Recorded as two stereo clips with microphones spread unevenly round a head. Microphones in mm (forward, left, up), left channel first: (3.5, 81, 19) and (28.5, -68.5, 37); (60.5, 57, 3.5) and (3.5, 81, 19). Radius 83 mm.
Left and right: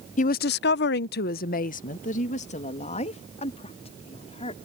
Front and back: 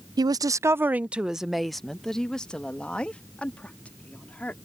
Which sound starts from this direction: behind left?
A woman speaking, at 0.2 s.